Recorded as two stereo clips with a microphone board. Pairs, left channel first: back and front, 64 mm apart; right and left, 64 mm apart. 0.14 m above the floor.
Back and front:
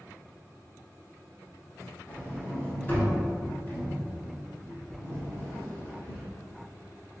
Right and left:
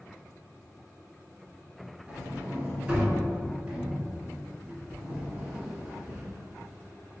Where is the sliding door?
150° left, 1.4 m.